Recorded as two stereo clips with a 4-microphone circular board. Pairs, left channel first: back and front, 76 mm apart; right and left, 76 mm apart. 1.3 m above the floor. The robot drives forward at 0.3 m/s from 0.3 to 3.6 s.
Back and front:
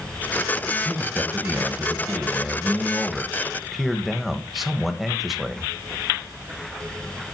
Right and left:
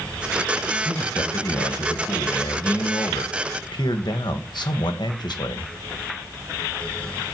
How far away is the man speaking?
About 1.8 m.